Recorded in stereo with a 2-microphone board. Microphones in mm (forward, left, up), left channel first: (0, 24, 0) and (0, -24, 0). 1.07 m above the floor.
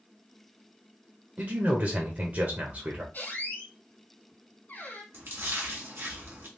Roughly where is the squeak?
Left.